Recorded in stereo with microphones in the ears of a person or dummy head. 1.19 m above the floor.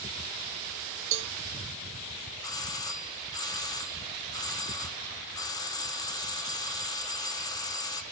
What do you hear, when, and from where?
1.1 s a cowbell: 70° right (ahead or behind), 0.6 m
2.4 s a doorbell: 20° left (ahead or behind), 0.5 m